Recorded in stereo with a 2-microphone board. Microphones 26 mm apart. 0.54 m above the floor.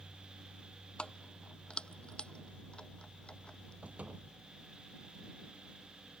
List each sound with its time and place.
1.0 s keys jangling: 40° left (ahead or behind); by 3.7 s 35° left (ahead or behind)
3.8 s a door slam: 50° right (ahead or behind)